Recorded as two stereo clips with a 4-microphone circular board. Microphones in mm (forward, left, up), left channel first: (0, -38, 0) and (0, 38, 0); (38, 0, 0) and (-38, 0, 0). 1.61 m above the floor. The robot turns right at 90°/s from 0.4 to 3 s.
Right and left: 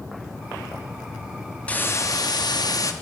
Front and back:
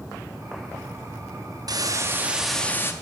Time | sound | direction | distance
1.7 | a hiss | 165° right | 0.6 m